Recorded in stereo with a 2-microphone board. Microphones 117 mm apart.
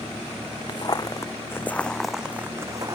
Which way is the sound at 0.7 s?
40° left (ahead or behind).